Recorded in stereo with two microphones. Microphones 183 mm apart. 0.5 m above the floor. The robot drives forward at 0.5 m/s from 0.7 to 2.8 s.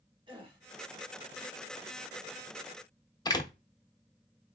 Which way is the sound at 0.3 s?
25° right (ahead or behind).